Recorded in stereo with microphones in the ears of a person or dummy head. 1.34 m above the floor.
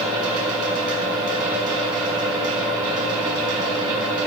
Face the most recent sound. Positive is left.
turn(degrees=-30)  # may be behind; listen again after turning